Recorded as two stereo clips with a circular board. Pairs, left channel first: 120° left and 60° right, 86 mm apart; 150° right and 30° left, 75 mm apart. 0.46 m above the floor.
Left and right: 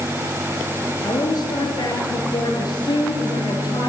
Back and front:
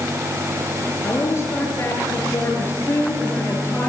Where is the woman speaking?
160° left, 9.5 m; by 3.9 s 150° left, 9.5 m.